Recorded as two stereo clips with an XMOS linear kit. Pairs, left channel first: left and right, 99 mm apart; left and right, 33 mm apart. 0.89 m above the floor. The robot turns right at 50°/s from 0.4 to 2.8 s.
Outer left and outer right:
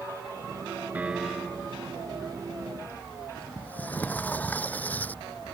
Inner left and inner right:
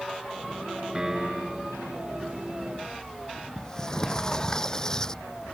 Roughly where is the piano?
Ahead.